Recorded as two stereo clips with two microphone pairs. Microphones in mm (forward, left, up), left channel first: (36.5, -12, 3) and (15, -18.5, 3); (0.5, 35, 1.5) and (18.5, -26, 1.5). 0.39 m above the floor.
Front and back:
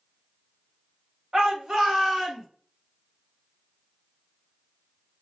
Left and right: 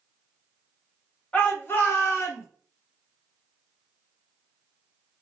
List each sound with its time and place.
1.3 s a shout: 165° left, 2.5 m; by 2.5 s 130° left, 3 m